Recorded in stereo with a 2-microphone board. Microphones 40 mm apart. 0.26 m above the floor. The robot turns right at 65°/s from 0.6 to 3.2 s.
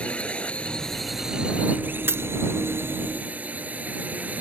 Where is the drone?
150° left; by 4.4 s 40° right.